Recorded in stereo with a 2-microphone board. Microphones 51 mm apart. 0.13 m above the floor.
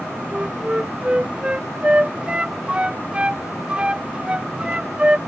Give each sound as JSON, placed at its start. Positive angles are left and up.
{"t": 0.3, "sound": "a flute", "side_deg": -20}